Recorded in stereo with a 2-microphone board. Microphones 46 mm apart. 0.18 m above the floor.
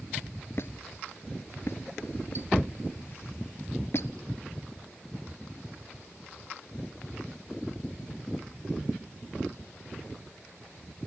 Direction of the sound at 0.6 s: 55° left (ahead or behind).